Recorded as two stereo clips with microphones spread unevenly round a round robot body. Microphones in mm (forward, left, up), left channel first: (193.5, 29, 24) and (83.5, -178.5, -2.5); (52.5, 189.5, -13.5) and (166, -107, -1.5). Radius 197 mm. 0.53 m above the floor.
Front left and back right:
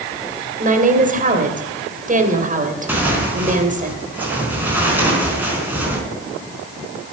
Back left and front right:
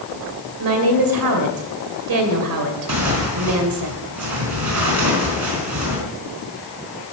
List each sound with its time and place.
0.6 s a woman speaking: 65° right, 2.5 m
2.9 s tearing paper: 35° right, 4.5 m